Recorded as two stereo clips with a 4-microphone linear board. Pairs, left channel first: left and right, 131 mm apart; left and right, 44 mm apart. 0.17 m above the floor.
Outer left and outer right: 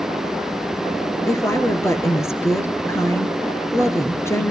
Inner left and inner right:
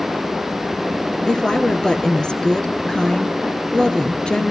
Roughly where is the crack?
I don't hear a crack.